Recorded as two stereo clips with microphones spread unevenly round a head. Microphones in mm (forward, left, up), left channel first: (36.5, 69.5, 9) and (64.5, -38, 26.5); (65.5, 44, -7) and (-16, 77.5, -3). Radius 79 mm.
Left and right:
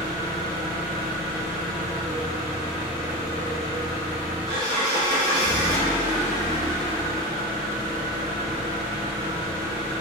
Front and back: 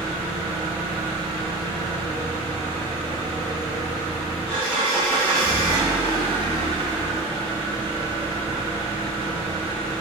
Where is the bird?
No bird in this recording.